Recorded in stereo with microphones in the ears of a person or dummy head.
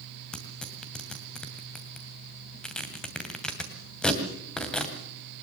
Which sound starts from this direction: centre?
Tearing paper, at 0.3 s.